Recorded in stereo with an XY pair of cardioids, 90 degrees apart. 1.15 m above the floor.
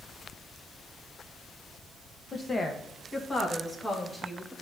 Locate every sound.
2.3 s a woman speaking: 45° left, 1.0 m; by 4.5 s 25° left, 2.5 m